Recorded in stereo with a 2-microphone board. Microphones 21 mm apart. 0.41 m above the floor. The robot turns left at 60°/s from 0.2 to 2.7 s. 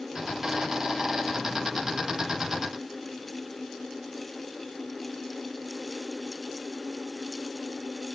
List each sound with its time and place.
Only background noise.